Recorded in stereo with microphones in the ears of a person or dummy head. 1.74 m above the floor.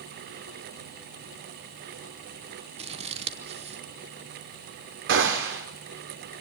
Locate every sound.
2.8 s scissors: 40° right (ahead or behind), 0.9 m
5.1 s a gunshot: 70° right (ahead or behind), 3.5 m